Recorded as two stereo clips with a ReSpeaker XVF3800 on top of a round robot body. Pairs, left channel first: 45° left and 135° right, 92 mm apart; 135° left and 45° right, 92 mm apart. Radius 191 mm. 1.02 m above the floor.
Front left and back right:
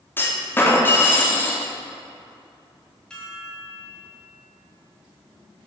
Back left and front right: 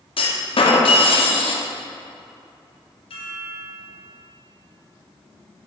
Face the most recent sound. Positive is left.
turn(degrees=125)